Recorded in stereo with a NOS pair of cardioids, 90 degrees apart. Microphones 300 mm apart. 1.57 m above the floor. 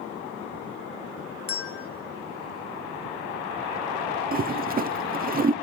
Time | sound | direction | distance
1.5 | a bell | 50° left | 1.5 m
4.3 | a toilet flushing | 30° right | 0.8 m